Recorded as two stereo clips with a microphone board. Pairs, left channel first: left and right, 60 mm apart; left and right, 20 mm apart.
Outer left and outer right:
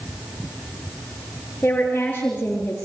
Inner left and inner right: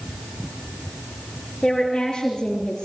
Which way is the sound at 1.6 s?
30° left (ahead or behind).